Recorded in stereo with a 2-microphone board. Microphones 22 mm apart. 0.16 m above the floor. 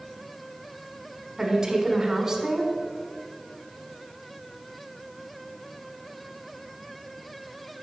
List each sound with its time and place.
1.4 s a woman speaking: 25° right (ahead or behind), 1.2 m